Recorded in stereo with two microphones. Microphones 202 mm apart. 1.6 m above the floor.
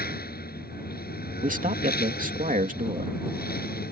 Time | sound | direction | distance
0.0 | a lawn mower | 50° left (ahead or behind) | ?
1.4 | a man speaking | 40° right (ahead or behind) | ?